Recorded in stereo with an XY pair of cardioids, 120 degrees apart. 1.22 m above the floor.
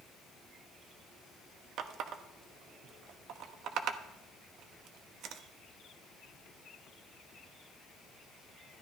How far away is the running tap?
About 1.0 m.